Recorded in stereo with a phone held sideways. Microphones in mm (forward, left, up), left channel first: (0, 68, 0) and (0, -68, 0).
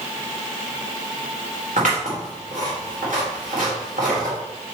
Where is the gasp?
No gasp in this recording.